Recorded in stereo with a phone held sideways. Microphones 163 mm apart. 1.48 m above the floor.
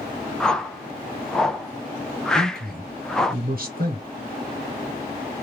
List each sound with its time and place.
0.4 s a whoosh: 5° left (ahead or behind), 0.5 m
2.4 s a man speaking: 70° right (ahead or behind), 0.8 m